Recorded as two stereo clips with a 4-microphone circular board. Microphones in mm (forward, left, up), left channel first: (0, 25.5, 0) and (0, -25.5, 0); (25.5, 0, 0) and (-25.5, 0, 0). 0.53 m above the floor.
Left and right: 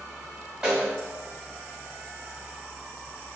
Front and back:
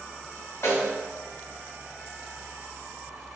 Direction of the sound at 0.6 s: 25° right.